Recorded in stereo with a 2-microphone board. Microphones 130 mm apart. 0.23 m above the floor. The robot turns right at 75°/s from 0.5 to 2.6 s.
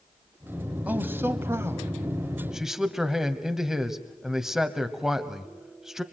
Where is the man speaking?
10° right (ahead or behind), 1.3 m; by 6.0 s 5° right (ahead or behind), 1.3 m.